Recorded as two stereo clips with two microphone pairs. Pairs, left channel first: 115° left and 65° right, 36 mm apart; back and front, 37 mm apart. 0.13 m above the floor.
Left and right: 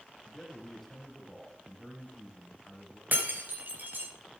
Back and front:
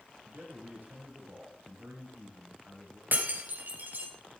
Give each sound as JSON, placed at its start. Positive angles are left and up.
{"t": 0.2, "sound": "a man speaking", "azimuth_deg": 30, "distance_m": 4.5}
{"t": 3.1, "sound": "breaking glass", "azimuth_deg": -30, "distance_m": 3.0}